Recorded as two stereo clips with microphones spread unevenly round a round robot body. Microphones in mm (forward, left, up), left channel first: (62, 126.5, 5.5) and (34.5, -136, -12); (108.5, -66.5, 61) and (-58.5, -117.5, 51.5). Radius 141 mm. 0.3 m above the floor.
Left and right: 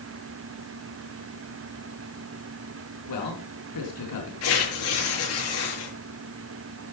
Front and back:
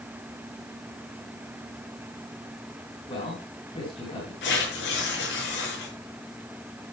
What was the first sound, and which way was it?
A man speaking, 85° left.